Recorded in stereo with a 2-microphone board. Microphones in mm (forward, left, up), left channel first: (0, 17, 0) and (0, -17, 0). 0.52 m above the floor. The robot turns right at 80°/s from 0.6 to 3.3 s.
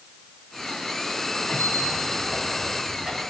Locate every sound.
1.5 s a squeak: 70° left (ahead or behind), 3.5 m; by 3.2 s 30° right (ahead or behind), 3.5 m